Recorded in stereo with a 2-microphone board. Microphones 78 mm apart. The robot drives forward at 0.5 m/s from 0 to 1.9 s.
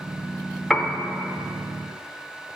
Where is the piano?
5° left (ahead or behind), 0.6 m.